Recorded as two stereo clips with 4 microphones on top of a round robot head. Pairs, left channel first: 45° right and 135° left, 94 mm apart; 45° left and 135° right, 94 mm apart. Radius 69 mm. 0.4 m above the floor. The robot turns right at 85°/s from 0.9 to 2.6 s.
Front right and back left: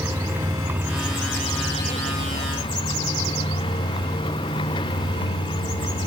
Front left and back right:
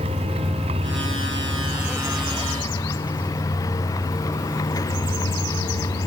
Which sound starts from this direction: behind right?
A vehicle, at 0.0 s.